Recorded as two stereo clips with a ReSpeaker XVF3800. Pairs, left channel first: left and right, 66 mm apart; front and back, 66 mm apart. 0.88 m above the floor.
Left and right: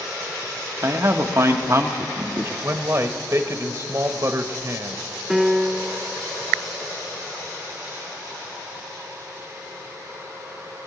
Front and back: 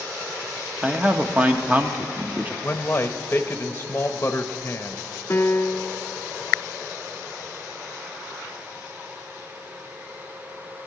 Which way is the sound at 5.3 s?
10° right.